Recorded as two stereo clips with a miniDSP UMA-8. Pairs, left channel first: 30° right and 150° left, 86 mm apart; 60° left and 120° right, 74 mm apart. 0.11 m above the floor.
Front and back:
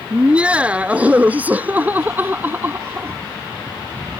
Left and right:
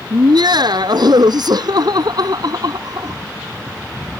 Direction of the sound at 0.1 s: 135° right.